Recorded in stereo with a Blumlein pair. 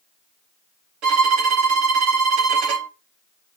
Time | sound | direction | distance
1.0 | a violin | 40° right | 1.5 m